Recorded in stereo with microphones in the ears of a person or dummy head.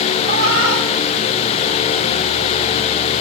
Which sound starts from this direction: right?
A cat meowing, at 0.2 s.